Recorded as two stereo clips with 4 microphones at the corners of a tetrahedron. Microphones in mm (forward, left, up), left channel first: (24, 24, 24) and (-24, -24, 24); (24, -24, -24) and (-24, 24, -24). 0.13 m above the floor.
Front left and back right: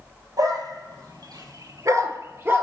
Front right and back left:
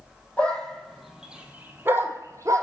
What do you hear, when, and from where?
0.4 s a dog barking: 115° right, 1.5 m; by 2.6 s 165° left, 1.5 m